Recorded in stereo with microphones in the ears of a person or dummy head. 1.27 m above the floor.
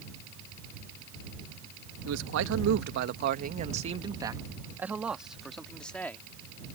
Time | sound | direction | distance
2.0 | a man speaking | 85° right | ?